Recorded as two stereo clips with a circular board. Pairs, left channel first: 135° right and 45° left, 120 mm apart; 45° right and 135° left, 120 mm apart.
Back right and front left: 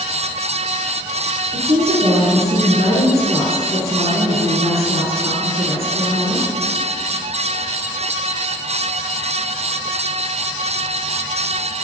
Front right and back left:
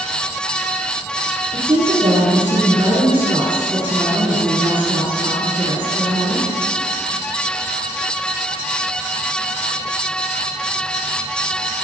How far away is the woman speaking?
About 7 m.